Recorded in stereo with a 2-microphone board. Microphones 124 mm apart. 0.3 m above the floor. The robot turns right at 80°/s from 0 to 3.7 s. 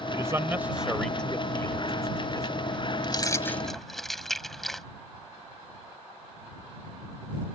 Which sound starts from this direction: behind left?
Keys jangling, at 3.0 s.